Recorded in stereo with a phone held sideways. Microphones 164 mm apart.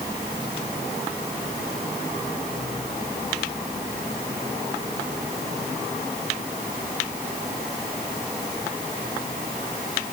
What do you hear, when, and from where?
Only background noise.